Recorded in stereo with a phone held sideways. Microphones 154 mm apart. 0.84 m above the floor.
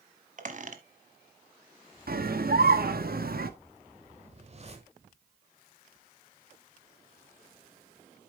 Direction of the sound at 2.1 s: 70° right (ahead or behind).